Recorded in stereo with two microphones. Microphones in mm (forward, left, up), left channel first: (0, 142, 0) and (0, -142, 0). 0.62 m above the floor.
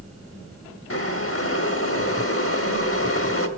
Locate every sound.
0.9 s boiling: 50° left (ahead or behind), 0.9 m